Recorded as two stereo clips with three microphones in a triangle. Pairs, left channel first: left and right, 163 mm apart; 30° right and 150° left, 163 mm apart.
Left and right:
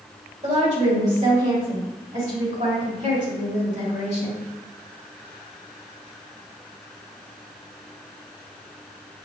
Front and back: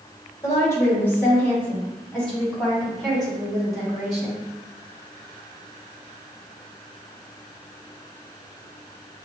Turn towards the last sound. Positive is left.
turn(degrees=-120)